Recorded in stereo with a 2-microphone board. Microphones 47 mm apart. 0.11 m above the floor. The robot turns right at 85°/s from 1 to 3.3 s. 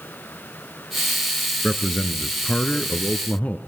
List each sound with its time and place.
1.6 s a man speaking: 15° right, 1.3 m; by 3.6 s 125° left, 1.3 m